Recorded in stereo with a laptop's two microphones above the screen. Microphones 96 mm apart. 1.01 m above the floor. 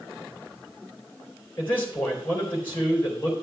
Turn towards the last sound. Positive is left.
turn(degrees=20)  # may be behind; listen again after turning